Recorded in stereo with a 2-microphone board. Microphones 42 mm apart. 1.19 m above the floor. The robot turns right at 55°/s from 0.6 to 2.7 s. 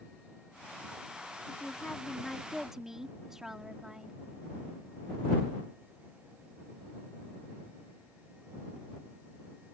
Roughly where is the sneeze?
I don't hear a sneeze.